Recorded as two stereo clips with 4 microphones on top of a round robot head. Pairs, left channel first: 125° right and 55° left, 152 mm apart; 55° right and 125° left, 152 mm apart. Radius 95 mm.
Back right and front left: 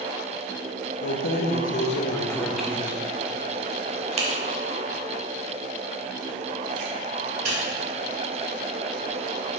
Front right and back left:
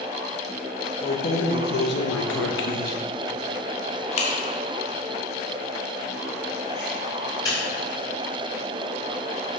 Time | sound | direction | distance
1.0 | keys jangling | 110° right | 0.8 m